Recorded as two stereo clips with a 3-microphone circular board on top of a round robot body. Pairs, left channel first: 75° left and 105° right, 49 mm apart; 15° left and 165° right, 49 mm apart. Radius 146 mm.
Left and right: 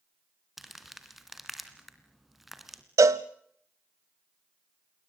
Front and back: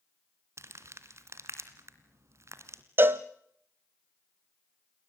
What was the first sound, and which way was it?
Crumpling, 170° left.